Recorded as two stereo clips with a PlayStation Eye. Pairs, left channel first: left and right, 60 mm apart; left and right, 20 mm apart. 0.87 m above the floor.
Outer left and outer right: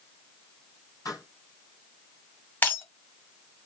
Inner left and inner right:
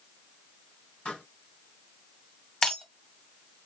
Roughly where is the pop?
Left.